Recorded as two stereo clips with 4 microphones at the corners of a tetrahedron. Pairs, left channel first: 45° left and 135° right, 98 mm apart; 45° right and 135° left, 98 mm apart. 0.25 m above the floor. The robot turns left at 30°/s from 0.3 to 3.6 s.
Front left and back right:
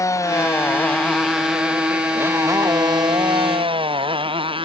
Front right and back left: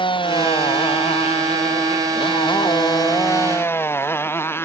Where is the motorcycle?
15° right; by 4.7 s 110° right.